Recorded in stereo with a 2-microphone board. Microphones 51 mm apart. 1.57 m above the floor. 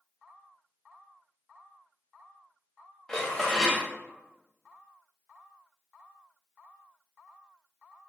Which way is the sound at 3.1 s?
10° left (ahead or behind).